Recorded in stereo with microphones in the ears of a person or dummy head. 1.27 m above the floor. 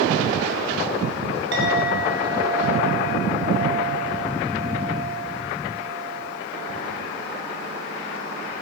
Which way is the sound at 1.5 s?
75° right (ahead or behind).